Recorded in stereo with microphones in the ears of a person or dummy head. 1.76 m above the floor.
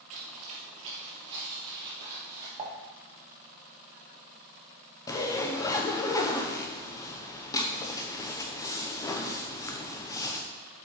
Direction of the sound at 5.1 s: 20° left (ahead or behind).